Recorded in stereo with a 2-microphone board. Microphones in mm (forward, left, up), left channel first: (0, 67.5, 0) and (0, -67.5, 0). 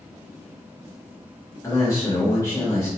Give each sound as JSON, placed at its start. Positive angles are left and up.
{"t": 1.6, "sound": "a man speaking", "side_deg": 20, "distance_m": 0.7}